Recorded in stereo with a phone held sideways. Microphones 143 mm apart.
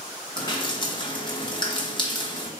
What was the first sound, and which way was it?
Dripping, 35° left (ahead or behind).